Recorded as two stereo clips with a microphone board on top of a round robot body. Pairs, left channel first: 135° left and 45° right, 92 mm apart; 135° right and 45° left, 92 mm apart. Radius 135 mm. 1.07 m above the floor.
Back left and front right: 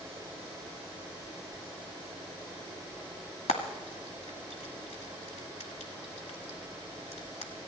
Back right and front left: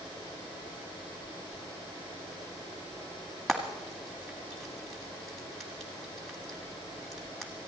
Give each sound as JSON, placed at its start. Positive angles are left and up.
{"t": 3.5, "sound": "frying", "azimuth_deg": 135, "distance_m": 1.4}